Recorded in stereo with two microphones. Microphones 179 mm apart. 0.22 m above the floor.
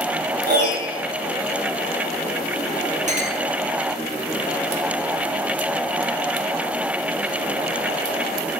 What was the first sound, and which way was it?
A piano, 60° right (ahead or behind).